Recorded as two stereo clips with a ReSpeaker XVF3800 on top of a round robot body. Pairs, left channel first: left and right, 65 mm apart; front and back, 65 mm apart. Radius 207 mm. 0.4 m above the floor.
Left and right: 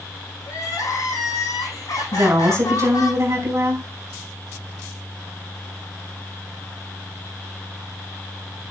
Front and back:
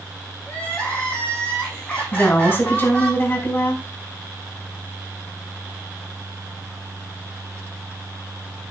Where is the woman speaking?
50° right, 5 m.